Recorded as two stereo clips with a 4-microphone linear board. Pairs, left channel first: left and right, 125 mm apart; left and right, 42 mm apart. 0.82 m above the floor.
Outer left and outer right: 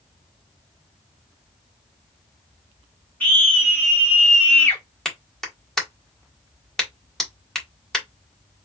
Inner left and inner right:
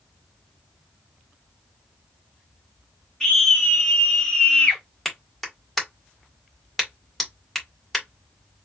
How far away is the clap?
About 1.4 m.